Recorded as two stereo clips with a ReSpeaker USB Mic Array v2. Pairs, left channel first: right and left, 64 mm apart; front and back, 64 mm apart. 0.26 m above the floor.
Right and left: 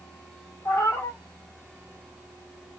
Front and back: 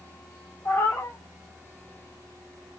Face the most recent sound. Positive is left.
turn(degrees=-50)